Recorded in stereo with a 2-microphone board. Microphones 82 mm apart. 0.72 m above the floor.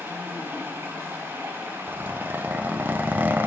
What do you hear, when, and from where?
0.0 s running water: 30° right (ahead or behind), 3 m
1.9 s a zipper: 25° right (ahead or behind), 0.6 m